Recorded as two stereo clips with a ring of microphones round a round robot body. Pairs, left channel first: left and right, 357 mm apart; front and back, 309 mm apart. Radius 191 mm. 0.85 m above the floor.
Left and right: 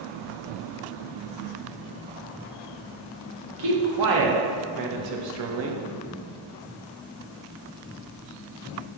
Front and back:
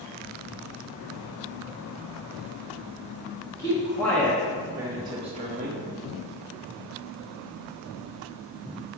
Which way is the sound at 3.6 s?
80° right.